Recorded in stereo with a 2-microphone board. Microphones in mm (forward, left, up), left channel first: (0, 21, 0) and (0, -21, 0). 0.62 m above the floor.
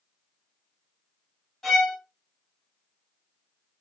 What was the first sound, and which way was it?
A violin, 10° left (ahead or behind).